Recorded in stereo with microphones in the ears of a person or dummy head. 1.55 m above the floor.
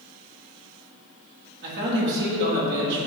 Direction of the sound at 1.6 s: 60° right (ahead or behind).